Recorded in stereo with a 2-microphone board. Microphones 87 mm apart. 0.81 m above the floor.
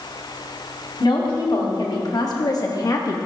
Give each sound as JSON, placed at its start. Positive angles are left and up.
{"t": 1.0, "sound": "a woman speaking", "side_deg": 55, "distance_m": 1.9}